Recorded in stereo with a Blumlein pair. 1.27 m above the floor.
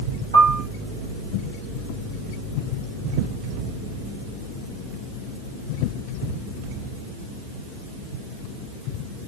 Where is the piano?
65° right, 4 m.